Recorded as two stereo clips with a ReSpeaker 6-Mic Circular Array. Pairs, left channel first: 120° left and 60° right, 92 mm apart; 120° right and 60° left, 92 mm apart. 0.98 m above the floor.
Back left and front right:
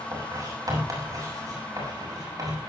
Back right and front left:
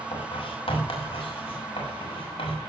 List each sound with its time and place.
0.1 s writing: 110° right, 6 m